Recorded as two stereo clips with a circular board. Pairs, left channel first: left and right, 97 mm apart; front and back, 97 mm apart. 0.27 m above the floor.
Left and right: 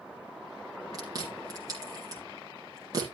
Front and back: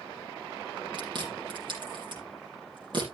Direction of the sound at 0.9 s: 140° right.